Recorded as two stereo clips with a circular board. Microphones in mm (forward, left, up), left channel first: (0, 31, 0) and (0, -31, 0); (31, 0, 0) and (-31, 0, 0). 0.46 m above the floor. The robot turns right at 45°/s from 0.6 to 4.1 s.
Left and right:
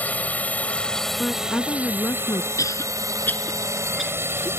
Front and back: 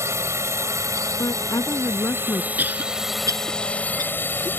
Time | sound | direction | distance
0.0 | a drone | 155° left | ?
1.2 | a woman speaking | 10° left | ?
2.6 | a cough | 120° left | ?